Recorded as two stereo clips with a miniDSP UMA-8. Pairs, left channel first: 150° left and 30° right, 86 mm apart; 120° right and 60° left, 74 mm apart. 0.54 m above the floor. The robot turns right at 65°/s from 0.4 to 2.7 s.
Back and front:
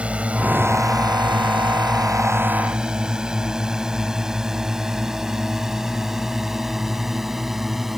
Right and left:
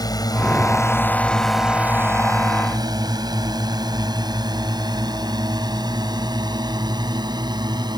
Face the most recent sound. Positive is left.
turn(degrees=55)